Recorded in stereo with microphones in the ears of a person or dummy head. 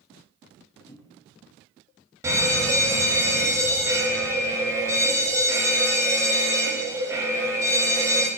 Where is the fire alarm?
20° right (ahead or behind), 1.8 m.